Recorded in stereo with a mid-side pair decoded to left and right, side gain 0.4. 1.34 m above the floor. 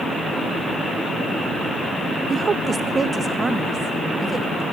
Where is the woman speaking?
45° right, 0.5 m; by 4.6 s 30° right, 2.5 m.